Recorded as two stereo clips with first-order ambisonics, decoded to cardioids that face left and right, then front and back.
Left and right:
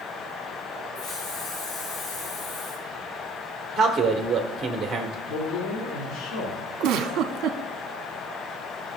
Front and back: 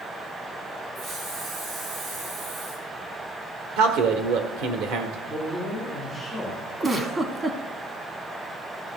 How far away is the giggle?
About 0.9 m.